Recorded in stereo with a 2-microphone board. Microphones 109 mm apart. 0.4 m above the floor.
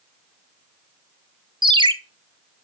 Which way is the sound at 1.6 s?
45° right (ahead or behind).